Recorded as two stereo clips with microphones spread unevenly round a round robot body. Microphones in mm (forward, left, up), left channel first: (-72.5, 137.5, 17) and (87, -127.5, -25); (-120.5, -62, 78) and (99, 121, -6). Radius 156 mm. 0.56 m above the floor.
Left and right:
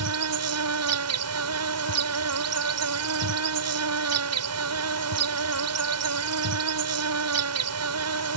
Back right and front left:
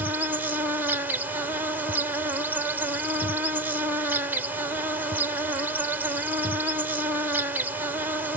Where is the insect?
35° right.